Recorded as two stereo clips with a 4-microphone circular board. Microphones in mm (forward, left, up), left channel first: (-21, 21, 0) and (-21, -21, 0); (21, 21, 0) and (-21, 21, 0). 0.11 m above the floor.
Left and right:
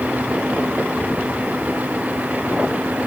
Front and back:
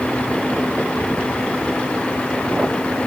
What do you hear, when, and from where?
Only background noise.